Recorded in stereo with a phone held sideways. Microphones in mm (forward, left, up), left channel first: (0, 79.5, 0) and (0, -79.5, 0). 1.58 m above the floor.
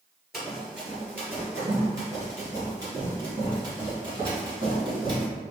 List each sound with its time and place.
0.3 s running footsteps: centre (ahead or behind), 1.7 m; by 5.2 s 35° right (ahead or behind), 3.5 m